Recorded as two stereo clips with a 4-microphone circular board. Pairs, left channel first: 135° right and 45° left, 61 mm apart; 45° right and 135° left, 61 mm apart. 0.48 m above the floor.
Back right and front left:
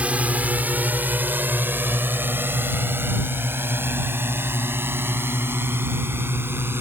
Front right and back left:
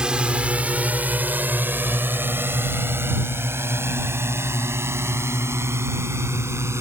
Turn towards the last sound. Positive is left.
turn(degrees=95)